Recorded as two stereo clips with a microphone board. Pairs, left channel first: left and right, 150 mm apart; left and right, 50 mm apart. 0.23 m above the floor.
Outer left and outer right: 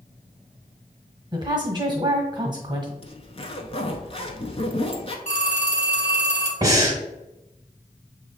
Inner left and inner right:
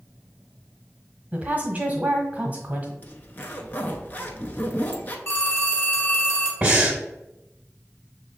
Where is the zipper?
40° left (ahead or behind), 0.6 m.